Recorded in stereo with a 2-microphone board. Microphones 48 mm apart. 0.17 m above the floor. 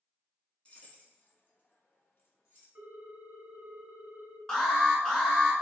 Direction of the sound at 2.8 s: 45° right (ahead or behind).